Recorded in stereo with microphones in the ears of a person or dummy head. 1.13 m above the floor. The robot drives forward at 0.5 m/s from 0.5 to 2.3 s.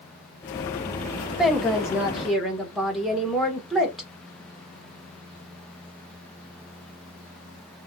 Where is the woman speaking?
Centre (ahead or behind), 0.5 m.